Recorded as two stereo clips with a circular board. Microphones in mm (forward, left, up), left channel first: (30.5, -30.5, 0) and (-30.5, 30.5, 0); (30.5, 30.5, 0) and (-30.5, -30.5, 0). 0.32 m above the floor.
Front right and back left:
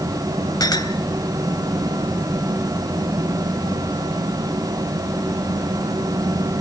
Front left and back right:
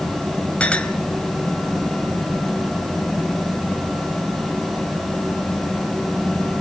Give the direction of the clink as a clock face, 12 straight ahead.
1 o'clock.